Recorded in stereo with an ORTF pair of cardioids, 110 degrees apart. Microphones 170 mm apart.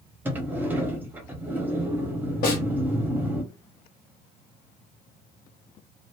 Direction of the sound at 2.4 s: 60° left.